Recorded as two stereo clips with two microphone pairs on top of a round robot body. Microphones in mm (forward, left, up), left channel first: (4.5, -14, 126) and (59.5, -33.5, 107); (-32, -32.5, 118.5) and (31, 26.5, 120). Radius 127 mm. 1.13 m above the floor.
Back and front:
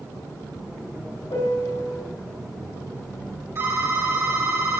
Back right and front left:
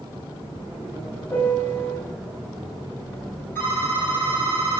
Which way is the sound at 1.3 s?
160° left.